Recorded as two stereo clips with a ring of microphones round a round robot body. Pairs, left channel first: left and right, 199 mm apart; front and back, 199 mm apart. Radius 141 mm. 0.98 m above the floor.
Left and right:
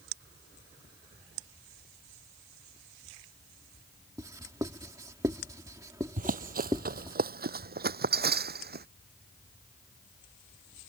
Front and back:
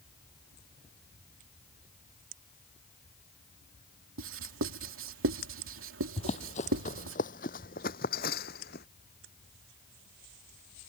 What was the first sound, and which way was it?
Writing, 170° right.